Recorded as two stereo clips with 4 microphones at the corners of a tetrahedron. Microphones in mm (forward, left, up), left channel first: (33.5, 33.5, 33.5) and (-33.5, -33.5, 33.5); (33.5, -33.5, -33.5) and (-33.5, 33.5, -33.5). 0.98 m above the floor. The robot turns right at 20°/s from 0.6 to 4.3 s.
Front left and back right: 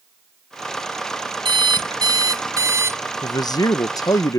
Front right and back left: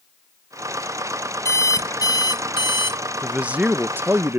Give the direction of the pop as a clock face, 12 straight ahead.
I don't hear a pop.